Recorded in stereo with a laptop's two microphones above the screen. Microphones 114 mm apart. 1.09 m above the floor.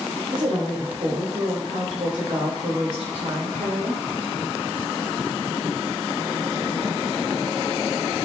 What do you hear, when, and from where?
0.3 s a woman speaking: 45° right (ahead or behind), 5 m